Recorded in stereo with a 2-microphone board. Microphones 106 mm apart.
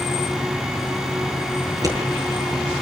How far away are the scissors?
About 6 m.